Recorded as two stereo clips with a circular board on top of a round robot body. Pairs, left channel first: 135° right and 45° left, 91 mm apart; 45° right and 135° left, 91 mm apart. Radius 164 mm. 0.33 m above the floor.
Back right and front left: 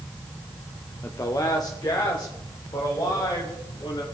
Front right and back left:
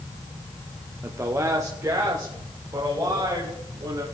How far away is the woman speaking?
About 1.1 m.